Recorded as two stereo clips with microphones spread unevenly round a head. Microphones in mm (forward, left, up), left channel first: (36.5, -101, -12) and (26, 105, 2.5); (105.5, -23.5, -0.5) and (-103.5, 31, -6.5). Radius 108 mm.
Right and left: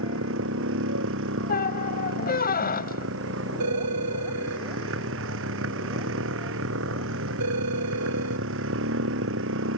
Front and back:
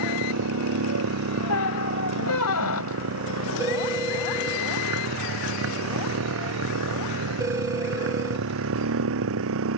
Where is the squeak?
35° right.